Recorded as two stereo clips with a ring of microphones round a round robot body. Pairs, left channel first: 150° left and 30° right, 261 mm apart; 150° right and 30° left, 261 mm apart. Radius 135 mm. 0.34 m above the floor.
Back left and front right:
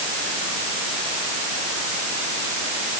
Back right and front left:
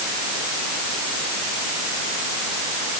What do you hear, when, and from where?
Only background noise.